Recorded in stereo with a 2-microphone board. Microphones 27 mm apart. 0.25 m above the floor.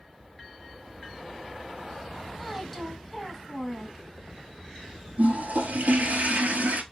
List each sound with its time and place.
2.4 s a woman speaking: 5° right (ahead or behind), 1.6 m
5.2 s a toilet flushing: 70° right (ahead or behind), 0.8 m